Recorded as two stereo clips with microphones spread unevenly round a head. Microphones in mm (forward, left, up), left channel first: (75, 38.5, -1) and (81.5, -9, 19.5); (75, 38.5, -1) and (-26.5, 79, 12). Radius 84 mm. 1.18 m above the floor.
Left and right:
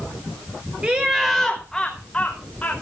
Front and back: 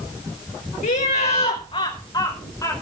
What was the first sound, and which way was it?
Laughter, 15° right.